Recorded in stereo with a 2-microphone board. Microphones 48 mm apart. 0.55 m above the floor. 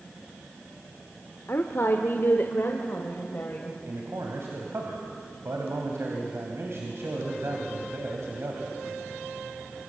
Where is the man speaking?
65° right (ahead or behind), 3 m.